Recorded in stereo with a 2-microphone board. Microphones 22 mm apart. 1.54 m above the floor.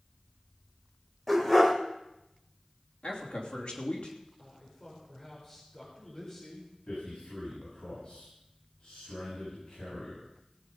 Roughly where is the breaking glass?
I don't hear breaking glass.